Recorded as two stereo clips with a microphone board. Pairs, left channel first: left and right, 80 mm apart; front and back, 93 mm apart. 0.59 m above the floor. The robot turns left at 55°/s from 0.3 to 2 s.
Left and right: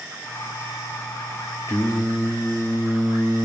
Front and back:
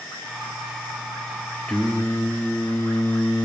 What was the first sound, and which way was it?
Singing, 70° left.